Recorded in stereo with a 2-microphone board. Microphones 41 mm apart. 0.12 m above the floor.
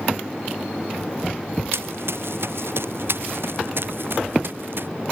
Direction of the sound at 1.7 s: 75° right (ahead or behind).